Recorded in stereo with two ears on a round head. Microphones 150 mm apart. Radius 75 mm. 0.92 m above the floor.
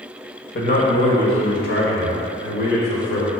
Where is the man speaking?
60° left (ahead or behind), 1.5 m; by 3.3 s 80° left, 3.5 m.